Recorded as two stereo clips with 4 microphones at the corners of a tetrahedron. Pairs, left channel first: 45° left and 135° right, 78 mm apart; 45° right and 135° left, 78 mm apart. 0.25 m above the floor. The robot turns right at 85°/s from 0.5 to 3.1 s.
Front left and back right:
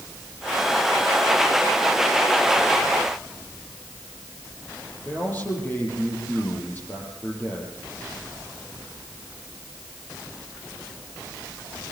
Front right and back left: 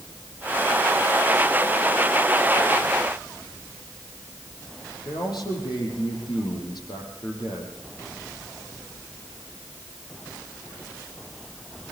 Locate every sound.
5.0 s a man speaking: 20° right, 7.5 m